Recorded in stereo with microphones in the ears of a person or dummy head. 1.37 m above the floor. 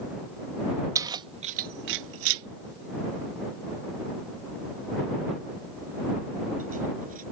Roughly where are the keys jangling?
Centre.